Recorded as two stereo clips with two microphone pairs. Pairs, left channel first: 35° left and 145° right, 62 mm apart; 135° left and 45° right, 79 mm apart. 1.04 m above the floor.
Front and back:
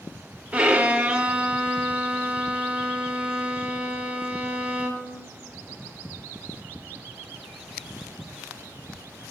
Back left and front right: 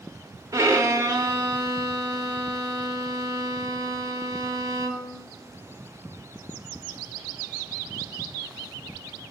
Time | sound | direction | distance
0.5 | a violin | 80° right | 0.8 m